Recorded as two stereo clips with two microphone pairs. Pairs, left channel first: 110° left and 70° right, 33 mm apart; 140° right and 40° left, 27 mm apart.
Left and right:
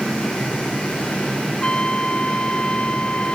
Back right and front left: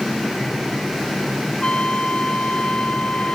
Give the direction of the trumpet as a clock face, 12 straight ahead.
6 o'clock.